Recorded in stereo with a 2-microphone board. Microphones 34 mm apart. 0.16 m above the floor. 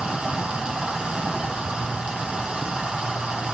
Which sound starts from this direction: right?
Running water, at 0.0 s.